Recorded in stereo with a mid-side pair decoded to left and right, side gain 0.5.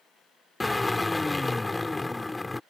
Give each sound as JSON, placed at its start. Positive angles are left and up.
{"t": 0.6, "sound": "a drill", "azimuth_deg": 15}